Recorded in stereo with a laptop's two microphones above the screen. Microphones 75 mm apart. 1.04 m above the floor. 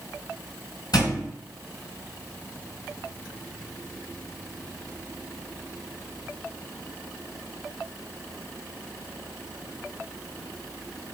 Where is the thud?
65° left (ahead or behind), 1.8 m.